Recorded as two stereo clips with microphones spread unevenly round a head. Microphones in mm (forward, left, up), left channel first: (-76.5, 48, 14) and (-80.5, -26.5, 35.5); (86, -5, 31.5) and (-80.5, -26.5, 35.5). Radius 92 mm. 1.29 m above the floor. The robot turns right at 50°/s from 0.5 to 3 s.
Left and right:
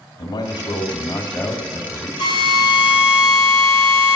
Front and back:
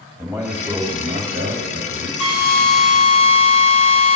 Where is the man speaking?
95° left, 2.0 m; by 2.1 s 175° left, 2.0 m.